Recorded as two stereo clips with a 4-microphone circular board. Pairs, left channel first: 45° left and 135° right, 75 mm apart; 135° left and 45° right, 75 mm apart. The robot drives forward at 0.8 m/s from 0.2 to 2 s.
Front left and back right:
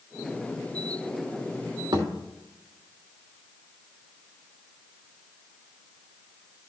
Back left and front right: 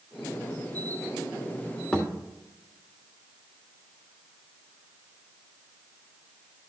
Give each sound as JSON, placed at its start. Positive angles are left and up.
{"t": 1.9, "sound": "a thud", "azimuth_deg": -150, "distance_m": 2.5}